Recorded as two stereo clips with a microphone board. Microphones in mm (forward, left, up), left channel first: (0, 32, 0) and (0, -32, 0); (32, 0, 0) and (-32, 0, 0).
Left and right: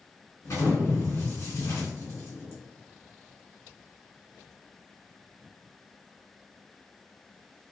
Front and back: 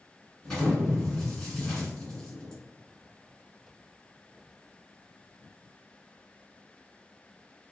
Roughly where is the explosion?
Left.